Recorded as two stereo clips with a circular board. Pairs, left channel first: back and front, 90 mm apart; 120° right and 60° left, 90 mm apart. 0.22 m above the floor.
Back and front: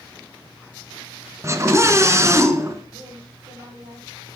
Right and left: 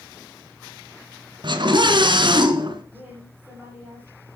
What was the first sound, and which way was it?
A scream, 55° left.